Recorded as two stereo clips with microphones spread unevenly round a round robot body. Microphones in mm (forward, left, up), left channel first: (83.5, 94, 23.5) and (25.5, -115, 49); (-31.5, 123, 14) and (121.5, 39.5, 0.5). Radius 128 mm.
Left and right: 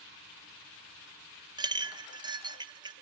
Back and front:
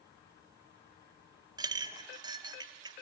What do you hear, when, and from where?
1.6 s a clink: 40° right, 0.7 m